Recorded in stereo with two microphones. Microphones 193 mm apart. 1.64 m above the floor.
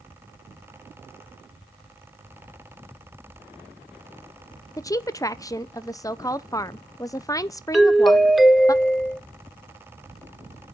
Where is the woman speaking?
15° left (ahead or behind), 0.5 m.